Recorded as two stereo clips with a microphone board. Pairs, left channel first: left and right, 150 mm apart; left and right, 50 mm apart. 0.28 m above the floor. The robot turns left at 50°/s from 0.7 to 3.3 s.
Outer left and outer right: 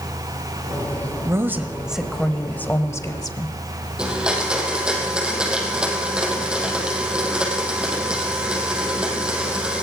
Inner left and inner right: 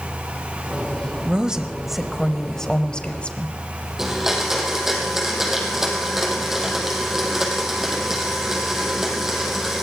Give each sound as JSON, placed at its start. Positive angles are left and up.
{"t": 1.2, "sound": "a woman speaking", "side_deg": -20, "distance_m": 1.2}
{"t": 4.0, "sound": "a blender", "side_deg": -5, "distance_m": 4.5}